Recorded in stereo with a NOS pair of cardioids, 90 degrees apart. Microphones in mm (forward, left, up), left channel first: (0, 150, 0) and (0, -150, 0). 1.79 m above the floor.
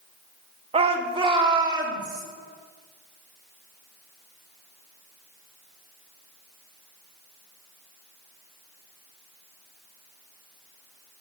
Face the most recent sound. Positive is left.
turn(degrees=-15)